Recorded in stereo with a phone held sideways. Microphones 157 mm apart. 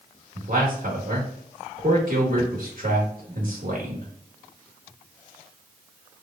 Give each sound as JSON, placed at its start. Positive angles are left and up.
{"t": 0.3, "sound": "a man speaking", "side_deg": -65, "distance_m": 1.3}